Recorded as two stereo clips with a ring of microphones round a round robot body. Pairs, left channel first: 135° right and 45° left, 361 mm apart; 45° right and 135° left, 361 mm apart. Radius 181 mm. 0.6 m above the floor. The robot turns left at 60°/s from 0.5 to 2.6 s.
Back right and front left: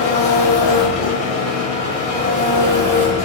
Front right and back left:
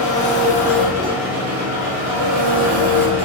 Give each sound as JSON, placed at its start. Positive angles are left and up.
{"t": 0.0, "sound": "an engine running", "azimuth_deg": -115, "distance_m": 1.2}